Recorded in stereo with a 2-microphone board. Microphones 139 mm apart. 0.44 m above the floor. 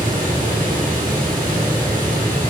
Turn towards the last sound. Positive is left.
turn(degrees=-80)